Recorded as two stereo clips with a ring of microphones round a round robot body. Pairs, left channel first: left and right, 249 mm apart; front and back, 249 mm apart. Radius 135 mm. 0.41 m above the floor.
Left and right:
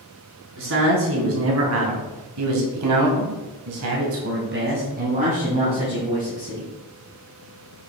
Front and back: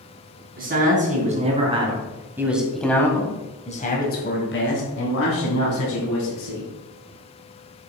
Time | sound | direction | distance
0.6 | a man speaking | 125° right | 3.5 m